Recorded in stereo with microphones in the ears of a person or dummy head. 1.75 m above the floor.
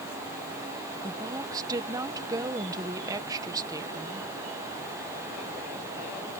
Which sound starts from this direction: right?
A woman speaking, at 1.0 s.